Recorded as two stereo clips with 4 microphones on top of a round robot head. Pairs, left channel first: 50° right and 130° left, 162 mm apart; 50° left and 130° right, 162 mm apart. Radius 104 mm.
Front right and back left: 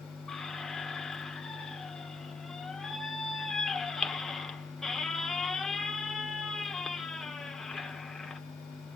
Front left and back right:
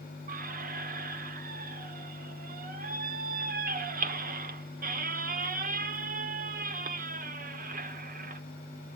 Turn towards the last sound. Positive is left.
turn(degrees=-140)